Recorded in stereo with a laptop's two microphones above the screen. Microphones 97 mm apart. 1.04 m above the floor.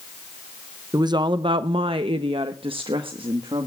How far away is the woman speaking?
About 0.6 m.